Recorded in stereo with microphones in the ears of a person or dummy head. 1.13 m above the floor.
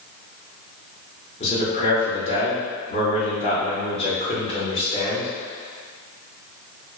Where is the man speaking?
35° left (ahead or behind), 1.0 m.